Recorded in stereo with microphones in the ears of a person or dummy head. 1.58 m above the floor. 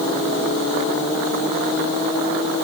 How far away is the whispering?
I don't hear whispering.